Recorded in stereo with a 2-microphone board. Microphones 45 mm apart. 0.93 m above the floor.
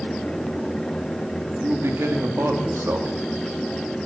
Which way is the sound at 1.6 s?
65° right (ahead or behind).